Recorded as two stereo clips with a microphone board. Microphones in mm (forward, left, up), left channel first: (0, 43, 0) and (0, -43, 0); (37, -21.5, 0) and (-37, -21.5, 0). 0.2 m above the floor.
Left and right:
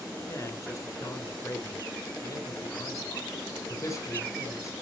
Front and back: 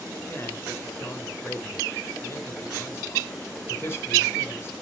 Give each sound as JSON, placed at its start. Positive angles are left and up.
{"t": 0.3, "sound": "a man speaking", "azimuth_deg": 50, "distance_m": 3.0}